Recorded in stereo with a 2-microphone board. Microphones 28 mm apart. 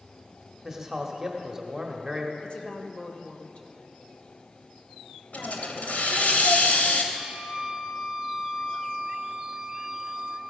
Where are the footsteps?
I don't hear footsteps.